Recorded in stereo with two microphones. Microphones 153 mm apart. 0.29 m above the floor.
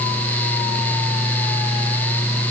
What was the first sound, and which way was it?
Only background noise.